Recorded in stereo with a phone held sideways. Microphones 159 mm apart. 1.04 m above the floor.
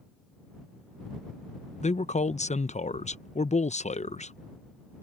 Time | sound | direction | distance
1.8 | a man speaking | 45° left (ahead or behind) | ?